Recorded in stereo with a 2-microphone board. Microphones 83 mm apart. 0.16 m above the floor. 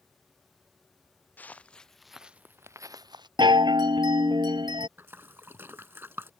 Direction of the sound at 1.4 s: 20° left (ahead or behind).